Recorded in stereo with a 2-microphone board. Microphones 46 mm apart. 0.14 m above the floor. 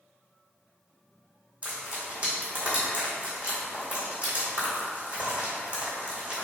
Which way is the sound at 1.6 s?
25° right (ahead or behind).